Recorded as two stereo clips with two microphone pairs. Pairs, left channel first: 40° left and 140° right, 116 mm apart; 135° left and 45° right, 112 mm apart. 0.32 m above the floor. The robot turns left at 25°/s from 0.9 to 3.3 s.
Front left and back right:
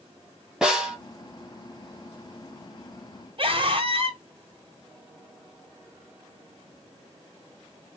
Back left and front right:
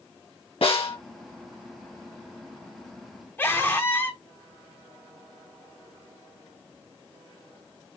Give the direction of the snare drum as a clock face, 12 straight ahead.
7 o'clock.